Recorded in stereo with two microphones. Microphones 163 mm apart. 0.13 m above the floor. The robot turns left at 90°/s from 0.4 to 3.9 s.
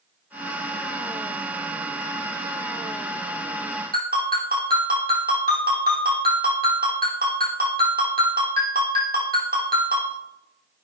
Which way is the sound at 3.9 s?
70° right (ahead or behind).